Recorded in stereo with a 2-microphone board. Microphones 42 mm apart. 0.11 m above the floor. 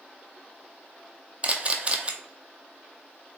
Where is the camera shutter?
30° right (ahead or behind), 0.5 m.